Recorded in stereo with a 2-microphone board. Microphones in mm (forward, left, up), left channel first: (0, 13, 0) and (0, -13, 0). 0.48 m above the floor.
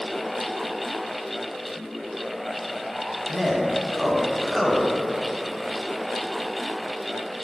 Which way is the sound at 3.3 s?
5° left (ahead or behind).